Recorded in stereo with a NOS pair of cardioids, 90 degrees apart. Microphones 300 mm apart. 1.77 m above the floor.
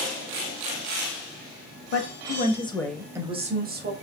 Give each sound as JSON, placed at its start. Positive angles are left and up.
{"t": 1.9, "sound": "a woman speaking", "azimuth_deg": 45, "distance_m": 1.0}